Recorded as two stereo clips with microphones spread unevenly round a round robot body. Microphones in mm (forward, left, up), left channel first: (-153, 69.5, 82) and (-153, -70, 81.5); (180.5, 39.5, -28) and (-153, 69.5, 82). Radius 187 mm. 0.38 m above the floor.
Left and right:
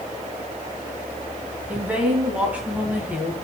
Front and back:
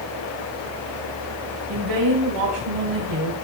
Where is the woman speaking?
170° right, 3 m.